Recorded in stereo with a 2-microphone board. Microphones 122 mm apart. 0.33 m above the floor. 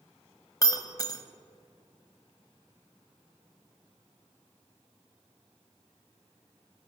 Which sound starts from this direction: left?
Breaking glass, at 0.6 s.